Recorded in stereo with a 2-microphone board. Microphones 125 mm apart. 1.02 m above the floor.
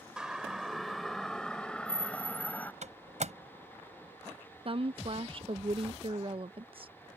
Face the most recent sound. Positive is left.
turn(degrees=-45)  # may be behind; listen again after turning